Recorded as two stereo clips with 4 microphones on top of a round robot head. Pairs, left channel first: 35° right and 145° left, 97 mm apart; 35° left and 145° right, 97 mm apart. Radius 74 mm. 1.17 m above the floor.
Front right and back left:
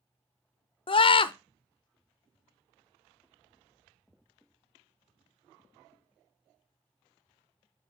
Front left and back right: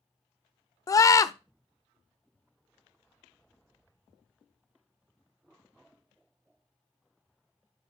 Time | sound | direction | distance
0.9 | a scream | 20° right | 0.6 m